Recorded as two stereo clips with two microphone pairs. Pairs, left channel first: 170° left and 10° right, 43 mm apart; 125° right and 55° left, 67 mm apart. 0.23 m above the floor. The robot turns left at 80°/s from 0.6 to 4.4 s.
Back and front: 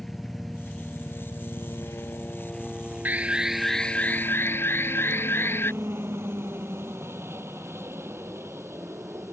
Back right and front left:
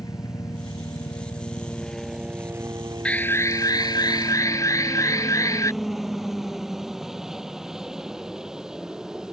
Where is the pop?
I don't hear a pop.